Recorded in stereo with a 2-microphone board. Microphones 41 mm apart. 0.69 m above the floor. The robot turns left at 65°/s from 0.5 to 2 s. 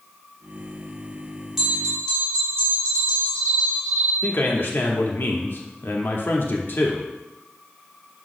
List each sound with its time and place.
1.6 s a bell: 10° right (ahead or behind), 2.5 m; by 4.1 s 20° left (ahead or behind), 2.5 m
4.2 s a man speaking: 55° left (ahead or behind), 1.0 m